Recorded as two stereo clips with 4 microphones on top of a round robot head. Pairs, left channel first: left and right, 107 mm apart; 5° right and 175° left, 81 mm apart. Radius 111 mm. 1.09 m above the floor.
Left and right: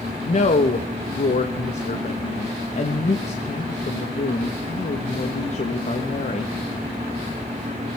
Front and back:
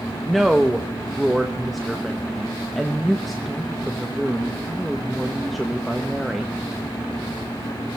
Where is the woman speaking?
85° left, 1.2 m.